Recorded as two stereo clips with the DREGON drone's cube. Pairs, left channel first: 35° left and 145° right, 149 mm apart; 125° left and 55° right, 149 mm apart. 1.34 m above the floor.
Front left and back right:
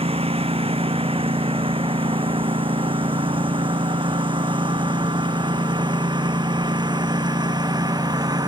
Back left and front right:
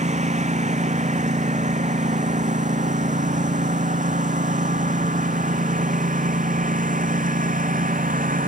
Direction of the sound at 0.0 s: 95° right.